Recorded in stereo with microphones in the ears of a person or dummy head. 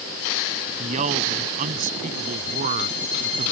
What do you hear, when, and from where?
0.8 s a man speaking: 40° right (ahead or behind); by 3.5 s 45° right (ahead or behind)